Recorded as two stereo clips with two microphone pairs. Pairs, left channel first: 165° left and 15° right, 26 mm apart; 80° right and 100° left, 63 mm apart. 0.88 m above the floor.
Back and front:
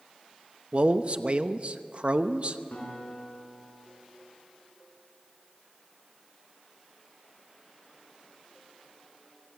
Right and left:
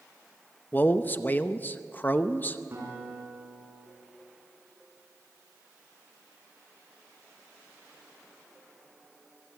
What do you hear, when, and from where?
0.7 s a man speaking: 35° right, 0.8 m
2.7 s a guitar: 145° left, 6 m